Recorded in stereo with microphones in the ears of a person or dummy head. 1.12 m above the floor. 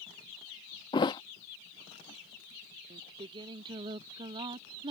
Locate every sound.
0.9 s a thud: 20° left (ahead or behind)
2.9 s singing: 25° right (ahead or behind)